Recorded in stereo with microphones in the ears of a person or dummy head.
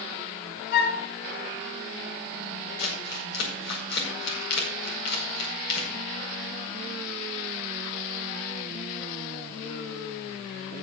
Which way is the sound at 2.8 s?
65° left (ahead or behind).